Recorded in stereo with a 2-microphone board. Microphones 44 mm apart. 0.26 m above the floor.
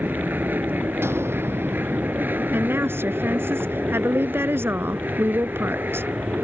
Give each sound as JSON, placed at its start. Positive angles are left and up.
{"t": 0.0, "sound": "an aircraft", "side_deg": -45}
{"t": 1.0, "sound": "an explosion", "side_deg": -65}
{"t": 2.5, "sound": "a woman speaking", "side_deg": -65}